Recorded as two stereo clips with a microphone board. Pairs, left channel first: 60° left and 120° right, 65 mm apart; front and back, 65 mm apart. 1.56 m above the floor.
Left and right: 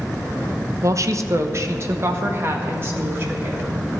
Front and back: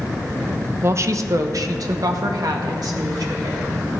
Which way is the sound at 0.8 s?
140° right.